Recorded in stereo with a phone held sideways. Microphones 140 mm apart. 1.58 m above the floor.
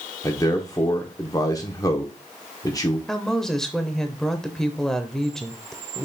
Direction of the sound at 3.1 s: 5° left (ahead or behind).